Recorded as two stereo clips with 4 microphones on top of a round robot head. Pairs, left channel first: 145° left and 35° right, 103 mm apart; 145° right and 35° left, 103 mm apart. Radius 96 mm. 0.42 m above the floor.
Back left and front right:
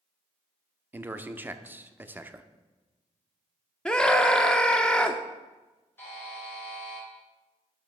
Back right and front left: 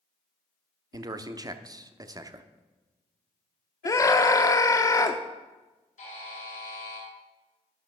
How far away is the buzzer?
About 3.5 m.